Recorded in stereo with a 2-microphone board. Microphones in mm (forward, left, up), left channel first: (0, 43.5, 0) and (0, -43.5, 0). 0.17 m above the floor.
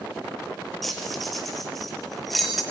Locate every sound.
0.8 s keys jangling: centre (ahead or behind), 2.5 m